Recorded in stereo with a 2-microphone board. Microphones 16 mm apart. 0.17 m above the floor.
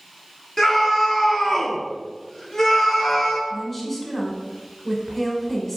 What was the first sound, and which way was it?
A scream, 25° left (ahead or behind).